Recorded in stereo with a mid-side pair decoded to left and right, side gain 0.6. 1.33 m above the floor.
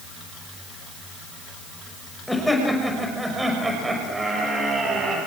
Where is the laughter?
Straight ahead, 6 m; by 5.2 s 35° right, 6.5 m.